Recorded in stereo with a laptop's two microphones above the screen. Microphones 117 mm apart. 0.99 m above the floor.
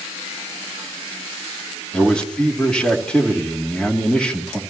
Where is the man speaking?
5° left (ahead or behind), 2.5 m.